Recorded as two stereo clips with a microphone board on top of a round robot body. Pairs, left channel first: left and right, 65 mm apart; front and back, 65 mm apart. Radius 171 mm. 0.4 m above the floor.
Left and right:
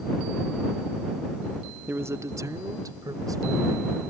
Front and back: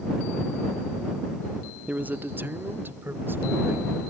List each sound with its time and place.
1.9 s a man speaking: 125° right; by 4.0 s 120° right